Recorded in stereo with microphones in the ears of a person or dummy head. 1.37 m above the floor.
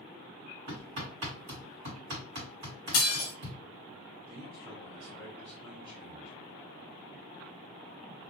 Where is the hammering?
40° right (ahead or behind), 1.7 m.